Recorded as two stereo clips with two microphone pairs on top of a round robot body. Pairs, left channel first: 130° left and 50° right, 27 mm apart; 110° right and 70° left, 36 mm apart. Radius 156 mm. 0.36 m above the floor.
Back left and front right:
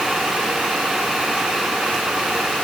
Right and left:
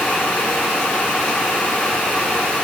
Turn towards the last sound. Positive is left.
No sound to turn to.